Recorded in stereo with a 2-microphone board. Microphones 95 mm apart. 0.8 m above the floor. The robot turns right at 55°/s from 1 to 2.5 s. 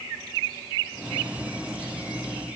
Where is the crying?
I don't hear crying.